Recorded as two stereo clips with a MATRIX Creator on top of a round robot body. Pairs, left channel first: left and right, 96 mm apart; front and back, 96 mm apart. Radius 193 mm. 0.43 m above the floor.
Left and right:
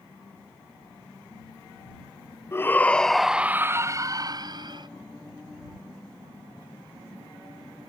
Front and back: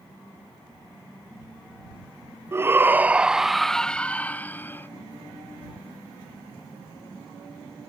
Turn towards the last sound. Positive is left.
turn(degrees=-65)